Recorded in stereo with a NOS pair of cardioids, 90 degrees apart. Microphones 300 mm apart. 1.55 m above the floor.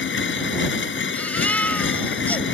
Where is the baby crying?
5° left.